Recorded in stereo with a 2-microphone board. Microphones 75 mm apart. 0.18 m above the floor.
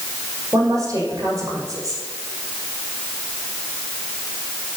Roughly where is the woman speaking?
Right.